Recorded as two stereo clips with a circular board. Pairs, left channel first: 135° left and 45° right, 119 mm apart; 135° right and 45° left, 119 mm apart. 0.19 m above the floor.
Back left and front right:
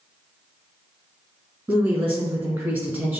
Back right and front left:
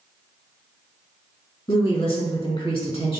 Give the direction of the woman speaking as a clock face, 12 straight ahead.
4 o'clock.